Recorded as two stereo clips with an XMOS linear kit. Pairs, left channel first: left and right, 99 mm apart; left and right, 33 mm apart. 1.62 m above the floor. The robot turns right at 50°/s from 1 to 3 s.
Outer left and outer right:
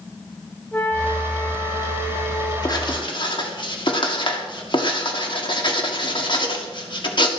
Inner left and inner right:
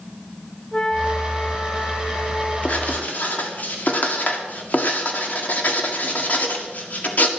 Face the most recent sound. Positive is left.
turn(degrees=55)  # may be behind; listen again after turning